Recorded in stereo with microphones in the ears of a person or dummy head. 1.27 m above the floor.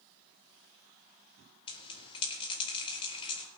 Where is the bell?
35° left (ahead or behind), 3.5 m.